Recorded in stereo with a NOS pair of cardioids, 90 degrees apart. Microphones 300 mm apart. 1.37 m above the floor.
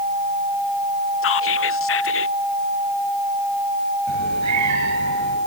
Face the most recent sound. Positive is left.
turn(degrees=-65)